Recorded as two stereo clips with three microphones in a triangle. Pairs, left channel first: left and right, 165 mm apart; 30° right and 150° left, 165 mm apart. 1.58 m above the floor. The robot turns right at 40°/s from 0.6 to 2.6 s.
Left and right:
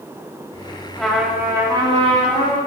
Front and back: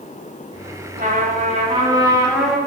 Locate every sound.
1.0 s a trumpet: 175° left, 4.5 m; by 2.6 s 120° right, 4.5 m